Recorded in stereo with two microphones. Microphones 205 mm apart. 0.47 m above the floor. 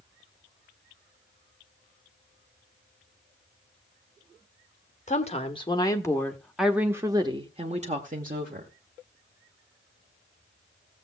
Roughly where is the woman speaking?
Left.